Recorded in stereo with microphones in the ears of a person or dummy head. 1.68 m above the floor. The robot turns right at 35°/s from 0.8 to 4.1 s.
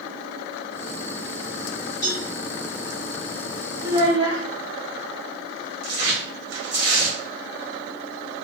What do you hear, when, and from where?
2.0 s a cowbell: 45° left (ahead or behind), 2.5 m; by 2.3 s 35° left (ahead or behind), 2.5 m
3.8 s a child speaking: 20° right (ahead or behind), 1.8 m; by 4.4 s 30° right (ahead or behind), 1.8 m
5.8 s tearing paper: 65° right (ahead or behind), 1.3 m